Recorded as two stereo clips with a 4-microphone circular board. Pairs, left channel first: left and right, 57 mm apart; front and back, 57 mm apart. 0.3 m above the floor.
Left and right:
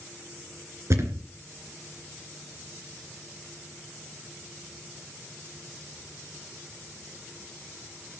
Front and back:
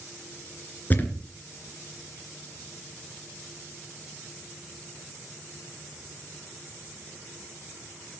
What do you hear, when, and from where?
0.9 s a thud: 60° right, 2.5 m